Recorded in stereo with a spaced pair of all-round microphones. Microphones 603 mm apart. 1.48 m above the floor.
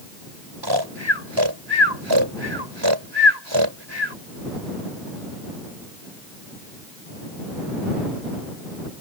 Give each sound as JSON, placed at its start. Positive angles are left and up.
{"t": 0.6, "sound": "snoring", "side_deg": -45}